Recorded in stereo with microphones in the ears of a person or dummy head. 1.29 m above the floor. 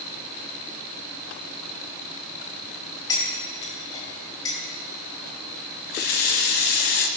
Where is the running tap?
50° left (ahead or behind), 0.8 m.